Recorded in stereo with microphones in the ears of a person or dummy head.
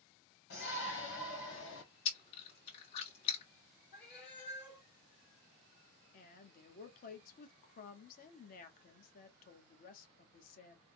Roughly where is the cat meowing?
Left.